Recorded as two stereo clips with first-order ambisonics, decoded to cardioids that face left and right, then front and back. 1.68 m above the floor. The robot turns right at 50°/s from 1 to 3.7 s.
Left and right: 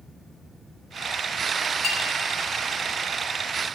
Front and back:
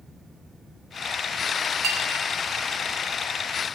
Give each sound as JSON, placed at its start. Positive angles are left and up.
{"t": 1.8, "sound": "a clink", "azimuth_deg": 150, "distance_m": 1.1}